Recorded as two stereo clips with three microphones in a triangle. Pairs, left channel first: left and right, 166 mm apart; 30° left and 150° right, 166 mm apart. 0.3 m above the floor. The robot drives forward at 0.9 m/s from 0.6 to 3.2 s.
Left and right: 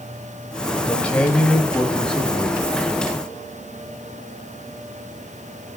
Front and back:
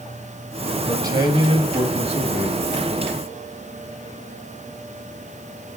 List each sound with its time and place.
0.9 s a man speaking: 165° left, 1.6 m; by 2.6 s 175° left, 2.5 m